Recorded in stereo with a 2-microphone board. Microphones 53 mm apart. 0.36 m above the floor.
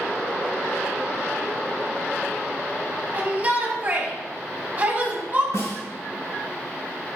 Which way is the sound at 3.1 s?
30° right (ahead or behind).